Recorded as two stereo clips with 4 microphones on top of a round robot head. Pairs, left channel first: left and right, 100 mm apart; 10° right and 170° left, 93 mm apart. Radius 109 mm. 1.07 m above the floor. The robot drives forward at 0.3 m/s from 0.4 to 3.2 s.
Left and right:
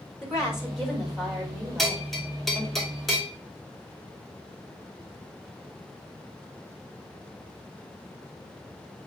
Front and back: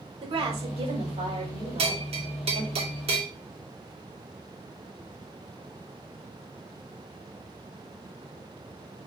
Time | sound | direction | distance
0.2 | a woman speaking | 175° right | 4.5 m
1.8 | a bell | straight behind | 2.5 m